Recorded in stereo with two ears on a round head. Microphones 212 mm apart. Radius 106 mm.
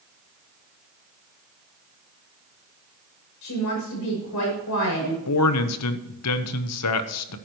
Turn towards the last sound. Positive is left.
turn(degrees=75)  # may be behind; listen again after turning